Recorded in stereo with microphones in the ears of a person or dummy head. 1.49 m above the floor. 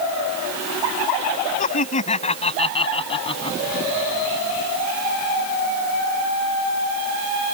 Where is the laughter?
40° left (ahead or behind); by 3.6 s 25° left (ahead or behind).